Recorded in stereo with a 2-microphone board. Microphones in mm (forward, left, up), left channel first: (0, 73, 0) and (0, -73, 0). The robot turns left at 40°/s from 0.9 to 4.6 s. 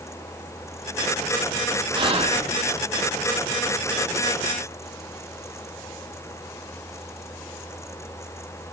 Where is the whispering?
30° right (ahead or behind), 2 m; by 2.5 s 55° right (ahead or behind), 2 m.